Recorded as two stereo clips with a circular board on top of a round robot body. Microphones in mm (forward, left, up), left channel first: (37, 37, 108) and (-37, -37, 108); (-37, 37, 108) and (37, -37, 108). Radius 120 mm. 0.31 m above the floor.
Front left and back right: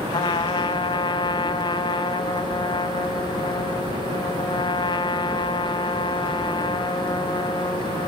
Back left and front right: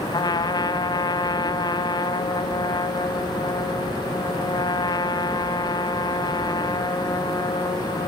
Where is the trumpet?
85° left, 1.9 m.